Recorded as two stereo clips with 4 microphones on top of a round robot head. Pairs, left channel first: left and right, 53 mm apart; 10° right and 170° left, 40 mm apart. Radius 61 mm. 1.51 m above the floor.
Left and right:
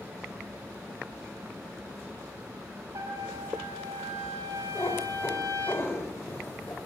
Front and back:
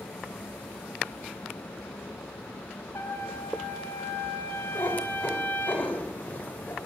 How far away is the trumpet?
About 4 m.